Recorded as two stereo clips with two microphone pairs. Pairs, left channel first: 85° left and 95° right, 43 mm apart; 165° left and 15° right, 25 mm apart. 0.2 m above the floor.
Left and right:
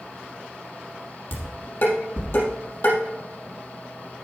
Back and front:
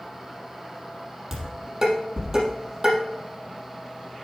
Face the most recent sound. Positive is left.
turn(degrees=55)